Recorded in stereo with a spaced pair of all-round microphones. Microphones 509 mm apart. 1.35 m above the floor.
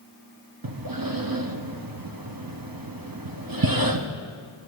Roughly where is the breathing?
Right.